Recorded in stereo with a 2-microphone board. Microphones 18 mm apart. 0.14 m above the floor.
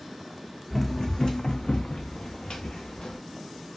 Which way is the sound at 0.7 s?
15° left (ahead or behind).